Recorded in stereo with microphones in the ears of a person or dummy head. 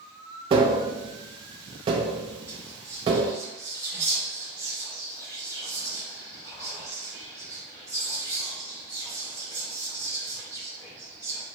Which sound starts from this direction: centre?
Whispering, at 2.5 s.